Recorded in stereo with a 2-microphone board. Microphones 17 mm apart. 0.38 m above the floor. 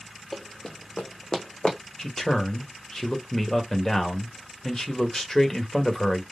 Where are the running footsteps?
20° left (ahead or behind), 0.5 m; by 1.8 s 70° left (ahead or behind), 1.0 m.